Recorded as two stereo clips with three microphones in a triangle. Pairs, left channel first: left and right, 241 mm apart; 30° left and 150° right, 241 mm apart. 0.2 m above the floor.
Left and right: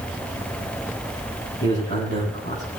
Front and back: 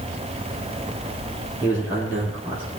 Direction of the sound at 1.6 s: 130° left.